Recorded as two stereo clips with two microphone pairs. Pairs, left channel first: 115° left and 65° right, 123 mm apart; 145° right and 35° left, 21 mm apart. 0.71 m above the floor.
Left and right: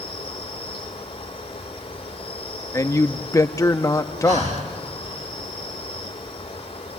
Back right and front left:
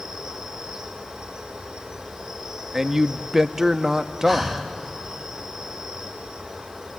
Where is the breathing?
60° right, 2.5 m.